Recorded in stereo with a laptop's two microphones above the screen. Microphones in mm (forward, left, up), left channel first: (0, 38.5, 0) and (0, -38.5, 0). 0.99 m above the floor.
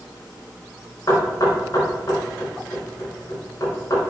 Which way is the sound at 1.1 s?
50° left (ahead or behind).